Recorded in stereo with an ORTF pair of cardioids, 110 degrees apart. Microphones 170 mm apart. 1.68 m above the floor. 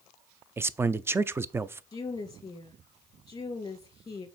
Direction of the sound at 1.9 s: 20° left.